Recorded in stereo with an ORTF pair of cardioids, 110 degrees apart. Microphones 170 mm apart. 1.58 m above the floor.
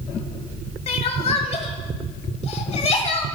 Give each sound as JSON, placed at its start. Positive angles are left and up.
{"t": 0.9, "sound": "crying", "azimuth_deg": 40, "distance_m": 1.5}